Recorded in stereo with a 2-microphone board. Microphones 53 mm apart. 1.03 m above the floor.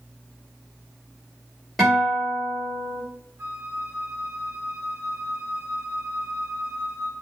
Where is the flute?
45° right (ahead or behind), 0.8 m.